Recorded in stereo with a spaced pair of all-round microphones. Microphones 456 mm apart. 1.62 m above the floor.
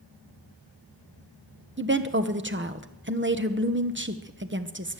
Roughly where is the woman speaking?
Right.